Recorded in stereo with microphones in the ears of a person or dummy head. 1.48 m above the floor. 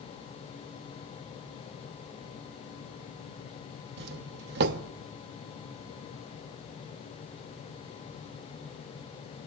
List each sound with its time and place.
4.0 s a doorbell: 55° right (ahead or behind), 0.6 m